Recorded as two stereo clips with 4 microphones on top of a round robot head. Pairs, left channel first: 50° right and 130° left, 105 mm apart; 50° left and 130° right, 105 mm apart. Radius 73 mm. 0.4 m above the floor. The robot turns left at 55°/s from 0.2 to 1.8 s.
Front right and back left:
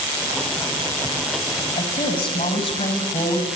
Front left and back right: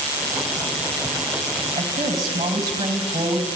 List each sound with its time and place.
1.8 s a woman speaking: 75° right, 3 m; by 3.5 s 80° right, 3 m